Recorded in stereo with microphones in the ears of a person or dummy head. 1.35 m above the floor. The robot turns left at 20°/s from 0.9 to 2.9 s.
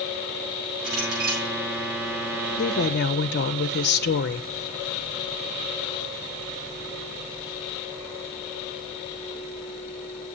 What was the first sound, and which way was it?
A clink, 80° right.